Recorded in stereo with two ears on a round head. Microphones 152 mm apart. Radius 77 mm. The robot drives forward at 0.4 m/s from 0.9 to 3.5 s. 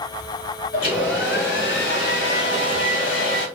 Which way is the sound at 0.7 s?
60° left (ahead or behind).